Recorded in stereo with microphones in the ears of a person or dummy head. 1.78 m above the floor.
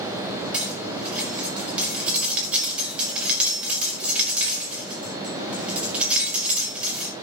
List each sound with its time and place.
0.5 s cutlery clinking: 5° right (ahead or behind), 5 m